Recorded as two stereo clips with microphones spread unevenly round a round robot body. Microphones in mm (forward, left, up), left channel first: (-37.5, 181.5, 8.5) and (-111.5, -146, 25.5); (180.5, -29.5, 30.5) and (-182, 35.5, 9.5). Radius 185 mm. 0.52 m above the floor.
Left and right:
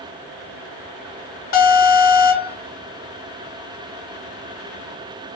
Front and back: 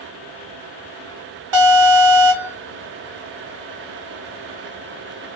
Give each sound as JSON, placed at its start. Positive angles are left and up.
{"t": 1.5, "sound": "an alarm", "azimuth_deg": 130, "distance_m": 1.1}